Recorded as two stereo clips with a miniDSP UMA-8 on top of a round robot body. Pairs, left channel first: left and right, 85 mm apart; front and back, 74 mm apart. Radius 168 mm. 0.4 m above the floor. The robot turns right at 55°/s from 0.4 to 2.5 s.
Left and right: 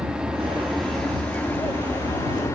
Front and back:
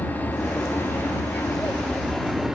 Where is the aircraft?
20° right; by 2.6 s 100° left.